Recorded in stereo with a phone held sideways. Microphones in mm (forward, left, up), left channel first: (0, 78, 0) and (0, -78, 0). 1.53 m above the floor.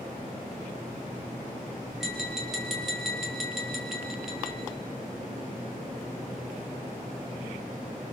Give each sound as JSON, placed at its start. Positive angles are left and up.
{"t": 2.0, "sound": "tapping", "side_deg": 0, "distance_m": 5.0}